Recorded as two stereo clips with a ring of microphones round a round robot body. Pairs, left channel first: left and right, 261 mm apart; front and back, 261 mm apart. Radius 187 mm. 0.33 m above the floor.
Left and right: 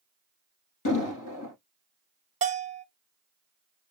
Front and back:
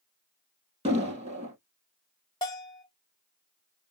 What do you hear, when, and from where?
0.8 s an explosion: 110° left, 3 m
2.4 s a bell: 65° right, 0.8 m